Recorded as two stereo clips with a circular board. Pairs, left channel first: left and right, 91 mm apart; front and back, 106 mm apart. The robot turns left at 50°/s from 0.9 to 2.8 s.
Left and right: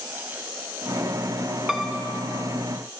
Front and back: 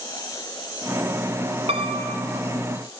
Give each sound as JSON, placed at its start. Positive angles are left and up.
{"t": 1.7, "sound": "a piano", "azimuth_deg": -175, "distance_m": 0.6}